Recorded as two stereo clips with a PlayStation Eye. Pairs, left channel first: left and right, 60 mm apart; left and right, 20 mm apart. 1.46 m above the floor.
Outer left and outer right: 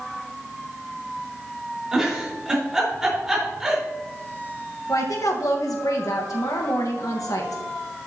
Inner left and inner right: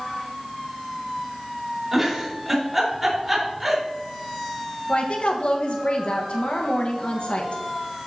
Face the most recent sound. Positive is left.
turn(degrees=70)  # may be behind; listen again after turning